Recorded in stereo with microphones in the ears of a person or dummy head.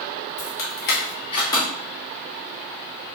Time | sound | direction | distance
0.4 | keys jangling | 65° left (ahead or behind) | 1.2 m